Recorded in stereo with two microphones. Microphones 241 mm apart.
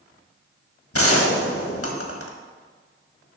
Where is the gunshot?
65° left (ahead or behind), 1.4 m.